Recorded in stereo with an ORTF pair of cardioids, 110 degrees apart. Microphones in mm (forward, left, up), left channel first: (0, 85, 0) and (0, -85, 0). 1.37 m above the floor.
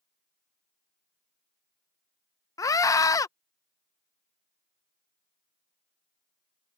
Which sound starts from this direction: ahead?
A scream, at 2.6 s.